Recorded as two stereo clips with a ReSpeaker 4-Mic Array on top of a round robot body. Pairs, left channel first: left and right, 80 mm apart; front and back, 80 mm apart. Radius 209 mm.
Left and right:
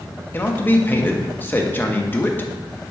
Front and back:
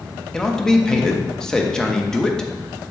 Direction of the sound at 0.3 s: 75° left.